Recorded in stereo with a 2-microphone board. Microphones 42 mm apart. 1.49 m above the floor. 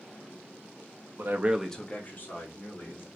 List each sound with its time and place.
1.2 s a man speaking: 65° right (ahead or behind), 0.6 m; by 3.1 s 55° left (ahead or behind), 2 m